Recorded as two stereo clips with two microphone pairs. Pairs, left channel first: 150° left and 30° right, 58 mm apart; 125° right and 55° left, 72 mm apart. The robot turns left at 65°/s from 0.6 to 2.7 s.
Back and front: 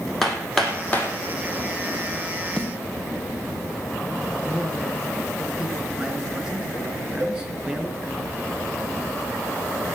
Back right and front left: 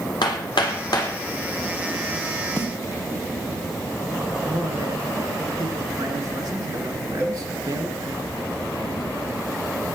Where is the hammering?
120° right, 2.5 m; by 1.1 s 155° right, 2.5 m.